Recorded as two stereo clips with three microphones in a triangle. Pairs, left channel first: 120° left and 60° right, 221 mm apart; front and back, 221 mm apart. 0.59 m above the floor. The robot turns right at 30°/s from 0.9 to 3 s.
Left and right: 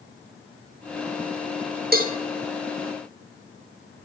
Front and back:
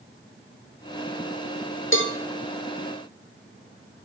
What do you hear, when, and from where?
1.9 s a cowbell: 15° right, 1.6 m; by 2.1 s 10° right, 1.6 m